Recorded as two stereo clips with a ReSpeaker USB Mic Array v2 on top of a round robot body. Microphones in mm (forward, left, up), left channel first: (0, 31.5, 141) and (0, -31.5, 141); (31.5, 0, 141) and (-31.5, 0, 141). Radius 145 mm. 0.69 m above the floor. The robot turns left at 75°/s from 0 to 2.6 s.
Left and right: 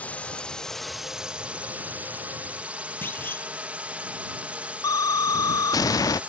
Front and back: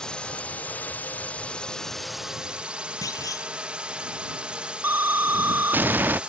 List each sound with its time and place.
0.0 s a drone: 65° left; by 6.3 s 130° right
3.0 s a clunk: 30° left
4.8 s an explosion: 120° left